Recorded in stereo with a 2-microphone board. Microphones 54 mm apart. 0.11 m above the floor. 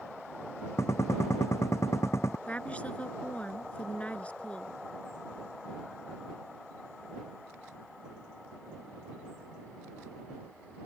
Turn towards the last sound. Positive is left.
turn(degrees=25)  # may be behind; listen again after turning